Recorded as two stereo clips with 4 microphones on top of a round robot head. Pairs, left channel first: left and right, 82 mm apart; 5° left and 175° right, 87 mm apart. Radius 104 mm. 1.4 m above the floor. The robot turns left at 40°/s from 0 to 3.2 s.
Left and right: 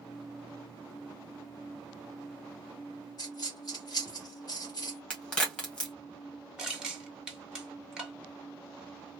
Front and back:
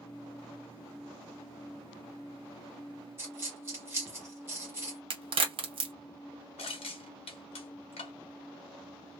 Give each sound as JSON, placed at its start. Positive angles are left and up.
{"t": 3.2, "sound": "a dropped coin", "azimuth_deg": 140, "distance_m": 1.0}
{"t": 5.1, "sound": "a crack", "azimuth_deg": 170, "distance_m": 1.3}
{"t": 6.6, "sound": "crushing", "azimuth_deg": -10, "distance_m": 1.2}